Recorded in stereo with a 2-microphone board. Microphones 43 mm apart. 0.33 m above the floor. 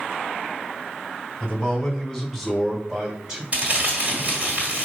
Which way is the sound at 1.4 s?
15° left (ahead or behind).